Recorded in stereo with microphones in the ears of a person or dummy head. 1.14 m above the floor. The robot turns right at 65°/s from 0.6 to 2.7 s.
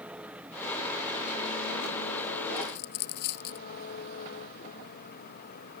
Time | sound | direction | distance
0.0 | an engine running | 5° right | ?
2.6 | a dropped coin | 55° left (ahead or behind) | ?